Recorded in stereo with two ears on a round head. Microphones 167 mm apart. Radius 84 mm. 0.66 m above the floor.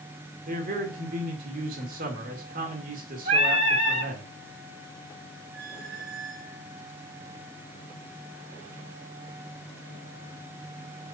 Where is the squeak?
60° right (ahead or behind), 6 m.